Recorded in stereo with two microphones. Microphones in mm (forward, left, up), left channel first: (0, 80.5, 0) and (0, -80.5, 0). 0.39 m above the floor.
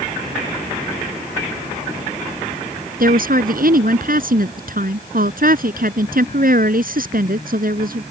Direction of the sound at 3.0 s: 65° right (ahead or behind).